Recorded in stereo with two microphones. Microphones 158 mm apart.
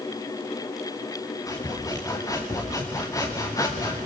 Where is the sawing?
20° left (ahead or behind), 3 m.